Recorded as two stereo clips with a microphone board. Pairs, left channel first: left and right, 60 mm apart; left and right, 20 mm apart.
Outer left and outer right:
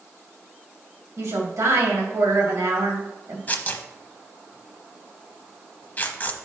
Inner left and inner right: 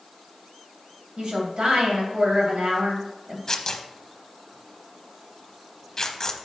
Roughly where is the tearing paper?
Left.